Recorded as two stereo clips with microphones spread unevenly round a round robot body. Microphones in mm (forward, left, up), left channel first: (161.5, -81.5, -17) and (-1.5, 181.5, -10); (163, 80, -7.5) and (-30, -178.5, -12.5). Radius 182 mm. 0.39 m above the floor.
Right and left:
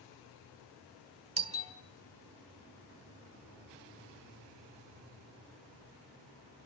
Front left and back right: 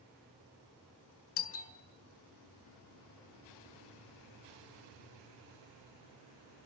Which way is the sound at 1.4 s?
60° left.